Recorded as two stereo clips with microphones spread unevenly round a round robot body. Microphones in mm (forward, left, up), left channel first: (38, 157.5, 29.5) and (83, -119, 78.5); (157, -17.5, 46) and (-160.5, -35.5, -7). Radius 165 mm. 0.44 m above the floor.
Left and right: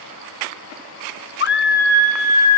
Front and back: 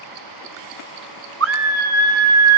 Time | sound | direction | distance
1.4 | a scream | 145° left | 1.7 m